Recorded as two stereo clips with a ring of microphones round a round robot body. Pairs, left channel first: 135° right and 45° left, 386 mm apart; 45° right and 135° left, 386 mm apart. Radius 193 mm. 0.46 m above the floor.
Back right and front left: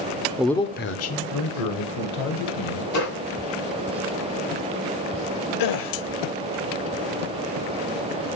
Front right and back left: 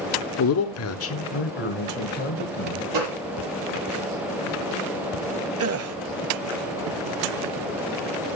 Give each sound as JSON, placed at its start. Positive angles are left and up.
{"t": 0.4, "sound": "a man speaking", "azimuth_deg": -35, "distance_m": 0.9}
{"t": 2.9, "sound": "a gunshot", "azimuth_deg": 175, "distance_m": 6.5}
{"t": 5.6, "sound": "a gasp", "azimuth_deg": -170, "distance_m": 1.1}